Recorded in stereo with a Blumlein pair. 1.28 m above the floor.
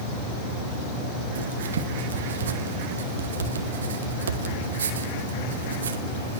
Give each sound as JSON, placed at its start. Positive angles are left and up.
{"t": 1.4, "sound": "writing", "azimuth_deg": -65, "distance_m": 2.0}